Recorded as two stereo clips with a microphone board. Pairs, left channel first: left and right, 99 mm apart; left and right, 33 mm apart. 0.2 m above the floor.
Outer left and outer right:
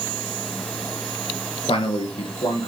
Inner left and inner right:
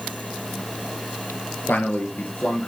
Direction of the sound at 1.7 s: 70° left (ahead or behind).